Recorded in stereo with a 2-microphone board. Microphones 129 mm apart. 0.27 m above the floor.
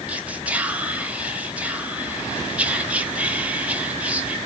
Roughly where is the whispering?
Centre.